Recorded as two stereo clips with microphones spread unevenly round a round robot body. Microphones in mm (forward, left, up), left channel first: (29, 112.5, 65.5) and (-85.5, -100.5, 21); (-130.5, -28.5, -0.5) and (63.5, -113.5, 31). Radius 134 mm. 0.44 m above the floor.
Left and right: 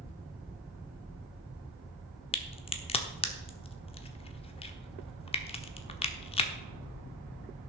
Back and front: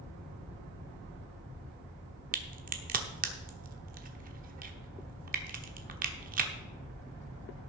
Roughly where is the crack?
Ahead.